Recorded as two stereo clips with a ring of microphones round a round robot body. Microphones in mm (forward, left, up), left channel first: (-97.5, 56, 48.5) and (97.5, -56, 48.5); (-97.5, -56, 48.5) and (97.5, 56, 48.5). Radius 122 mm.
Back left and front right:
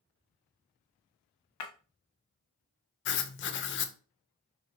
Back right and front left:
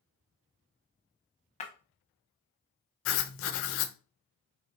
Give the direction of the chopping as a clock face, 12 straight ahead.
I don't hear chopping.